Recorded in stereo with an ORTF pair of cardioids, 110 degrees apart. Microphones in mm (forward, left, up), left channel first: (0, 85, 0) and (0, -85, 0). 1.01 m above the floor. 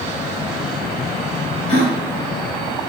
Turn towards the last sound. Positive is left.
turn(degrees=45)